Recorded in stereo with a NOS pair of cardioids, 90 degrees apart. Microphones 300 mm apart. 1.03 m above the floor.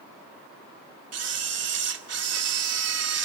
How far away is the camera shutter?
About 2 m.